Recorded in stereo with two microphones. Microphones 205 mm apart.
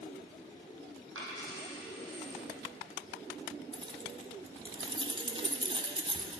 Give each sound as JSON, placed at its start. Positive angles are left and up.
{"t": 1.1, "sound": "a dropped coin", "side_deg": -85, "distance_m": 3.0}
{"t": 3.7, "sound": "keys jangling", "side_deg": -25, "distance_m": 0.8}